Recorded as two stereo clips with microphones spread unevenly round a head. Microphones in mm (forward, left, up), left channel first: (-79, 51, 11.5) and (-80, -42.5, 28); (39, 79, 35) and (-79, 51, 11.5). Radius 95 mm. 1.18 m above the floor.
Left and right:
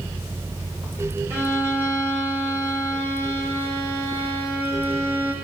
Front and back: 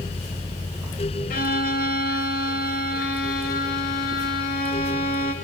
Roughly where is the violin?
Ahead.